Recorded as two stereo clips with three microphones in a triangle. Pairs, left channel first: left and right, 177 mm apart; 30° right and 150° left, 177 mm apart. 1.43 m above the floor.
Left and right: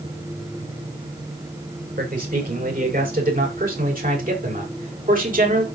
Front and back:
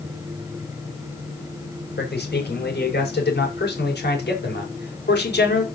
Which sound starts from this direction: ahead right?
A man speaking, at 2.0 s.